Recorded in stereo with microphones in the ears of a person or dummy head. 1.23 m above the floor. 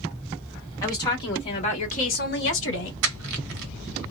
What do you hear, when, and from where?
0.8 s a woman speaking: 20° left (ahead or behind), 1.7 m; by 2.9 s 70° left (ahead or behind), 1.0 m
3.0 s crushing: 65° right (ahead or behind), 0.8 m